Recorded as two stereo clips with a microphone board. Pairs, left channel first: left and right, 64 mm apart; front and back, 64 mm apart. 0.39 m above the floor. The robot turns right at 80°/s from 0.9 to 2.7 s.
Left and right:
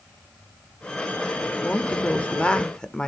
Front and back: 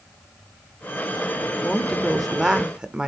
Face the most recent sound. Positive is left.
turn(degrees=140)